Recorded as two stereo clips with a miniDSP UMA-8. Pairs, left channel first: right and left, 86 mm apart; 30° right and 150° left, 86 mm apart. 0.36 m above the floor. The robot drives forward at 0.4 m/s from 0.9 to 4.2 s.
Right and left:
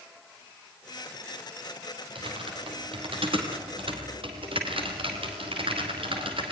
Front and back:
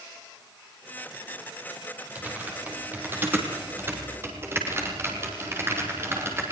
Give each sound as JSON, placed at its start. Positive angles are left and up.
{"t": 2.1, "sound": "typing on a keyboard", "azimuth_deg": 80, "distance_m": 5.0}